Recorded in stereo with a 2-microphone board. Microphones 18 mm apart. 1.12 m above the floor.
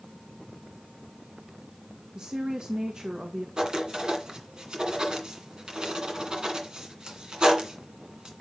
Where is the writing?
35° right (ahead or behind), 2 m.